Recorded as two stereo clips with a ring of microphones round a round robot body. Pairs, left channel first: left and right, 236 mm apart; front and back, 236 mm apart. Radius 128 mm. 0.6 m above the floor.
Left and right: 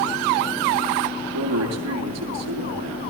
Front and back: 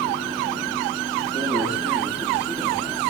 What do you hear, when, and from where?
1.3 s a man speaking: 95° right, 9 m